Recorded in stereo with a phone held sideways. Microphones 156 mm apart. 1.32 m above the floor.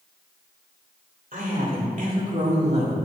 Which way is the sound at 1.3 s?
65° right (ahead or behind).